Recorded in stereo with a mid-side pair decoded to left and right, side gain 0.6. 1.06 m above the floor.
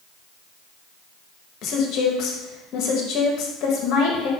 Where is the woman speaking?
60° left, 1.0 m.